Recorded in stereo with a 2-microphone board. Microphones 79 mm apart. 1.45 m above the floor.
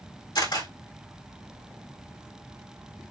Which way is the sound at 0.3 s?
70° left (ahead or behind).